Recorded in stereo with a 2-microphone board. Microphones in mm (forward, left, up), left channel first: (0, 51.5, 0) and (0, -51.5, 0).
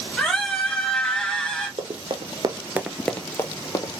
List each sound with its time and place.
0.2 s a scream: 10° left (ahead or behind), 1.4 m
1.8 s running footsteps: 60° right (ahead or behind), 1.0 m; by 3.9 s 40° left (ahead or behind), 1.1 m